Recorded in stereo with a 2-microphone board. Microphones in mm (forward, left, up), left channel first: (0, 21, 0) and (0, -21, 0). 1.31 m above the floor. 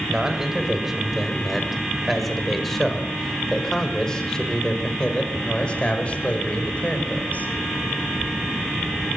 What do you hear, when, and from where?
0.1 s a man speaking: 15° right (ahead or behind), 6 m; by 7.5 s 40° left (ahead or behind), 6 m